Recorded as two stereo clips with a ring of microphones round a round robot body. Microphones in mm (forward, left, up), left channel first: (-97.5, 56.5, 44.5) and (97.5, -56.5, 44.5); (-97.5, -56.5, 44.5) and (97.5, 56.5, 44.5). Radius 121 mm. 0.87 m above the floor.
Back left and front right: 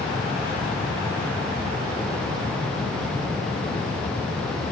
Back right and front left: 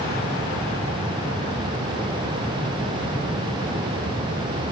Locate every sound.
Only background noise.